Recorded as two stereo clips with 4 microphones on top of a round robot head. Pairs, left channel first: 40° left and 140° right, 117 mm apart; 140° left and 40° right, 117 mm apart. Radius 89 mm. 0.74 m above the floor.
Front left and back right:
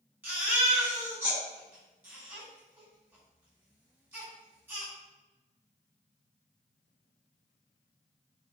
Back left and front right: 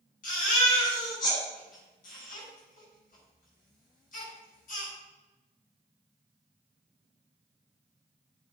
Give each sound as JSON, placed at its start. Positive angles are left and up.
{"t": 0.2, "sound": "a baby crying", "azimuth_deg": 145, "distance_m": 5.5}